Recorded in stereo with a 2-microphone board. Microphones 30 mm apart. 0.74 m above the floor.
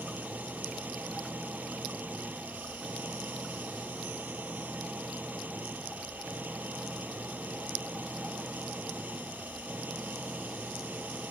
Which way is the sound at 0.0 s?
65° right (ahead or behind).